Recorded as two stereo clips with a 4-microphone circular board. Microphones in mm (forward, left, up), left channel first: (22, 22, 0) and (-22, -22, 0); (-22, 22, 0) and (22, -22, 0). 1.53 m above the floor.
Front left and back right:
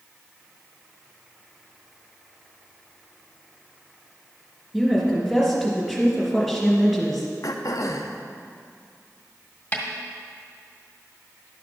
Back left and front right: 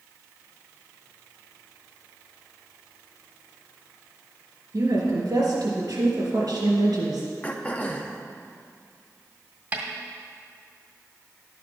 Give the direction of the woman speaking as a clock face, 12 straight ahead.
1 o'clock.